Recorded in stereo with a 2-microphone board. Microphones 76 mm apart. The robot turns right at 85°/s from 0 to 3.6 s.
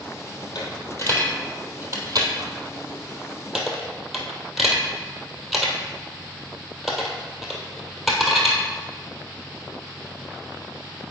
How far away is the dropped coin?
About 1.6 m.